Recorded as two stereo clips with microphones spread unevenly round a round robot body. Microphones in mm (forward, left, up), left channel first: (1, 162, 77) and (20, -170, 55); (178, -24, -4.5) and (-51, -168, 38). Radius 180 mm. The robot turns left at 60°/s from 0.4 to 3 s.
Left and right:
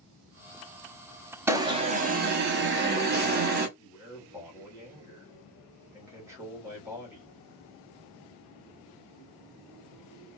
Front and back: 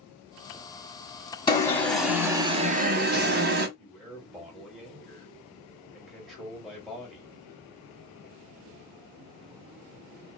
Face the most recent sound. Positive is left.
turn(degrees=-30)